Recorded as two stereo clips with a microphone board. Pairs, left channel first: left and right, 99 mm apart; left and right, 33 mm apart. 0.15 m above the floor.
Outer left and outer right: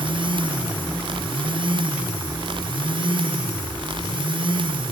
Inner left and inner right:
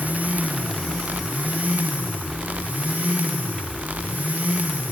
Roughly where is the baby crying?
I don't hear a baby crying.